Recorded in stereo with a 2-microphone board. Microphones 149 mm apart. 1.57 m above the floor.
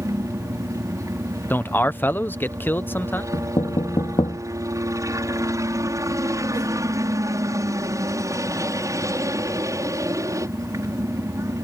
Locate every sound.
0.0 s a helicopter: 20° right (ahead or behind)
1.5 s a man speaking: 15° left (ahead or behind)
3.3 s knocking: 40° left (ahead or behind)